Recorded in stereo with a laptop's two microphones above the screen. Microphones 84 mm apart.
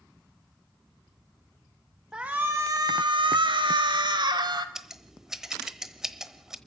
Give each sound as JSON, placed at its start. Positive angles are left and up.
{"t": 2.1, "sound": "a shout", "side_deg": -10, "distance_m": 1.2}
{"t": 4.8, "sound": "scissors", "side_deg": -5, "distance_m": 1.1}